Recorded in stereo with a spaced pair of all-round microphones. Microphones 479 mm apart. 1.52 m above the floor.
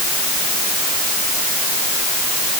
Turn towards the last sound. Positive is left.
No sound to turn to.